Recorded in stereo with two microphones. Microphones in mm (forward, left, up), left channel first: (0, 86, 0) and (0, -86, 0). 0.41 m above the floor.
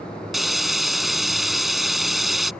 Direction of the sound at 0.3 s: Centre (ahead or behind).